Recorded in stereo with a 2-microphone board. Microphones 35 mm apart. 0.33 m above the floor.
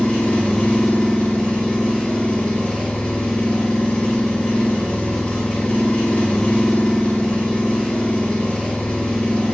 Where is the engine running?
30° left (ahead or behind), 1.9 m.